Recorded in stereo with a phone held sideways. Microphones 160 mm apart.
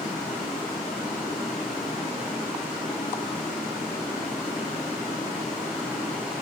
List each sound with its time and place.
0.0 s running water: 45° left (ahead or behind), 7.5 m